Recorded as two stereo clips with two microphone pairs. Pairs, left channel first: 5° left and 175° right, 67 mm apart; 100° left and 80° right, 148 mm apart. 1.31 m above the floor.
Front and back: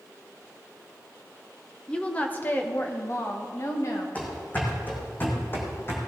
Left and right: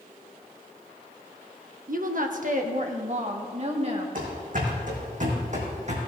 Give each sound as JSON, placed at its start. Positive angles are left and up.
{"t": 1.9, "sound": "a woman speaking", "azimuth_deg": -70, "distance_m": 1.1}
{"t": 4.2, "sound": "running footsteps", "azimuth_deg": -60, "distance_m": 4.0}